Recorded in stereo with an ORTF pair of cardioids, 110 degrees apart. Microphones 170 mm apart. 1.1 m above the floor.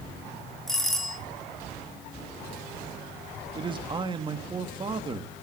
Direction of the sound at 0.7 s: Straight ahead.